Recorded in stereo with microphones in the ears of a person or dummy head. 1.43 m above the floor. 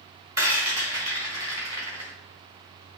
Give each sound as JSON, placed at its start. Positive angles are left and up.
{"t": 0.4, "sound": "a rattle", "side_deg": -20, "distance_m": 1.8}